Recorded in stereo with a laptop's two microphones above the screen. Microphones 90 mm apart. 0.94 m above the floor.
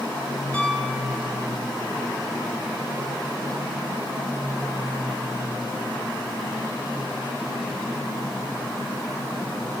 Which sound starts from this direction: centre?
A piano, at 0.5 s.